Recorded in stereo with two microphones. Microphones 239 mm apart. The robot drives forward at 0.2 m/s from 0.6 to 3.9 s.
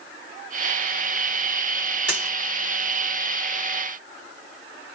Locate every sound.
2.1 s a dropped coin: 50° left (ahead or behind), 1.0 m; by 2.4 s 45° left (ahead or behind), 1.1 m